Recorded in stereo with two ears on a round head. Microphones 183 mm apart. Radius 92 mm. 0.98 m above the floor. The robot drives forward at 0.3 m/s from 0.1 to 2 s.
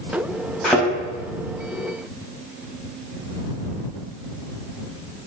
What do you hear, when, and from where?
0.6 s a thud: centre (ahead or behind), 4.5 m